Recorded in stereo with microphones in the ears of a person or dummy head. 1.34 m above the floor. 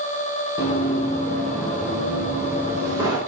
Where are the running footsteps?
35° left (ahead or behind), 2.5 m; by 3.2 s 20° right (ahead or behind), 3.5 m.